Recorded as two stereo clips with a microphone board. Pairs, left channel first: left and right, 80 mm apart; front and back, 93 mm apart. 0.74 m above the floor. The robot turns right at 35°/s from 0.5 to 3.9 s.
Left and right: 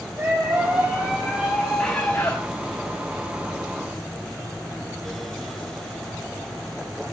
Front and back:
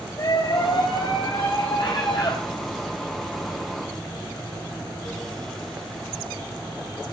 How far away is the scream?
About 5 m.